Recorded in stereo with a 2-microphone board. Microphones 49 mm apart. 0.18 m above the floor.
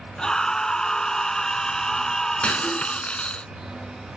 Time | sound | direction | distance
0.2 | a scream | 15° left (ahead or behind) | ?
2.4 | breaking glass | 25° left (ahead or behind) | ?